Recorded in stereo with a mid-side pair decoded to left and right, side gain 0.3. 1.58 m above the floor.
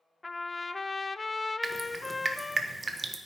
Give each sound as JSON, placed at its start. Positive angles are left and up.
{"t": 0.2, "sound": "a trumpet", "azimuth_deg": 30, "distance_m": 0.5}
{"t": 1.6, "sound": "dripping", "azimuth_deg": -40, "distance_m": 1.3}